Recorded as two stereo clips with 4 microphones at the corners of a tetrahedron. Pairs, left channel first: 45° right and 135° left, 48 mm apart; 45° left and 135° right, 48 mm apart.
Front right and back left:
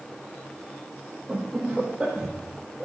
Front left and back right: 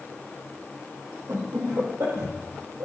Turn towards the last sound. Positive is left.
turn(degrees=-145)